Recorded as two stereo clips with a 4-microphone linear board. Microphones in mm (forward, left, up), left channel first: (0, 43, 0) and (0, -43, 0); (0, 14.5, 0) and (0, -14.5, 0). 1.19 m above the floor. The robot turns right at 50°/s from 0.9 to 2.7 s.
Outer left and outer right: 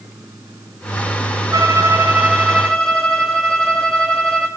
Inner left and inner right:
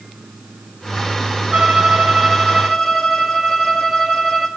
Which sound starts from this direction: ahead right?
A violin, at 1.5 s.